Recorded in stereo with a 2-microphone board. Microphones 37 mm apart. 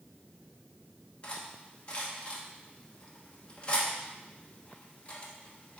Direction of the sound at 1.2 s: 30° left (ahead or behind).